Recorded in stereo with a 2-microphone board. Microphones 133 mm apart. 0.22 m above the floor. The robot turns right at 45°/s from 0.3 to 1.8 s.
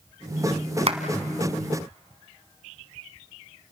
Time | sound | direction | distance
0.9 | a clap | 55° right (ahead or behind) | 1.5 m